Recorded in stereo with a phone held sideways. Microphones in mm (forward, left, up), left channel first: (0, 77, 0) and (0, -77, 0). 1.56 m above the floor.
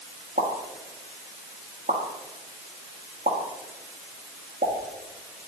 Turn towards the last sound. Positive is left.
turn(degrees=-75)  # may be behind; listen again after turning